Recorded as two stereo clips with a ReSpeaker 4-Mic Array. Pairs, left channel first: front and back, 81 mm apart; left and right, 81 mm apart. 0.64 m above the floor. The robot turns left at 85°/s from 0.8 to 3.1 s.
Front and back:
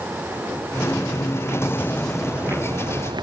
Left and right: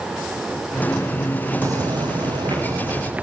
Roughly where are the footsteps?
Ahead right.